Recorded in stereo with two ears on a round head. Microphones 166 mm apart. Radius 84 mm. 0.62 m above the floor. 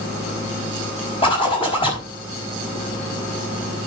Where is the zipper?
30° left (ahead or behind), 5 m.